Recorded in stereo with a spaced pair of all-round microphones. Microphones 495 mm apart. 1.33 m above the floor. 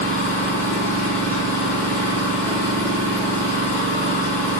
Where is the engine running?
5° left (ahead or behind), 1.4 m.